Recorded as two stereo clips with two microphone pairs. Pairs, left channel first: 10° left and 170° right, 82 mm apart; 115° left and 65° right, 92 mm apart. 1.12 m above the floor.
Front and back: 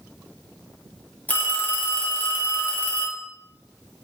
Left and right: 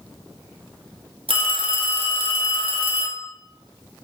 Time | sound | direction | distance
1.3 | a phone ringing | 60° right | 1.5 m